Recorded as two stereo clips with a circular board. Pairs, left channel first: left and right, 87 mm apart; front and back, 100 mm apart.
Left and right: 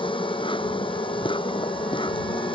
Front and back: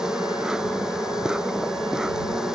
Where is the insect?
95° left.